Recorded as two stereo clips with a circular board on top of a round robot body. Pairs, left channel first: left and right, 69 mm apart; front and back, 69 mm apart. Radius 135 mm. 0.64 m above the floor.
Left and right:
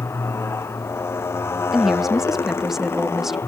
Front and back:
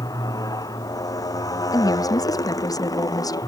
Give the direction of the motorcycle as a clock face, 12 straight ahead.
11 o'clock.